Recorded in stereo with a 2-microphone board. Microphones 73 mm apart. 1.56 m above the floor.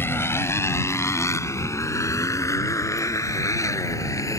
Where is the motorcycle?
35° left (ahead or behind); by 4.4 s 50° left (ahead or behind).